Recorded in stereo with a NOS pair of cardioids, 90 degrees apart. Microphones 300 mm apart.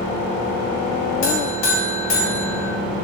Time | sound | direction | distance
1.2 | a buzzer | 55° left | 0.8 m